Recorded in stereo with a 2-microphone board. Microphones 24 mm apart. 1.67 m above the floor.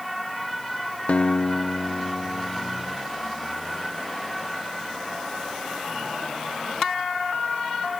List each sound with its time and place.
1.1 s a guitar: 70° left (ahead or behind)